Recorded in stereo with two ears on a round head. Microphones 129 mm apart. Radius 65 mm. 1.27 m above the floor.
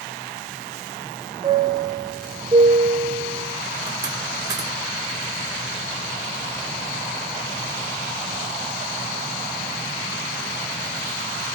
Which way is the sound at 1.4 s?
30° right (ahead or behind).